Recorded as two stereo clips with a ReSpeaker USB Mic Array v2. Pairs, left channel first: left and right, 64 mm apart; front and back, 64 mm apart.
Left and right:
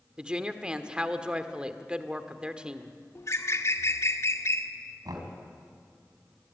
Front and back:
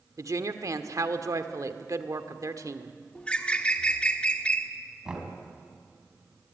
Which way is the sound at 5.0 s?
100° right.